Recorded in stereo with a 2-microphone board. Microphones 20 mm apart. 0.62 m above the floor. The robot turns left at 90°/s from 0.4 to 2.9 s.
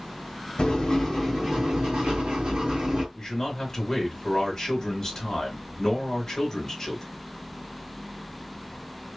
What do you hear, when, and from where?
0.6 s writing: 60° left, 1.6 m; by 3.0 s 150° right, 1.6 m
3.1 s a man speaking: 30° left (ahead or behind), 1.2 m